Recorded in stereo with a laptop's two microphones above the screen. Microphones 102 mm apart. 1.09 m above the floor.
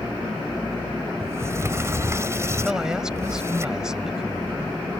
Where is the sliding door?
30° right (ahead or behind).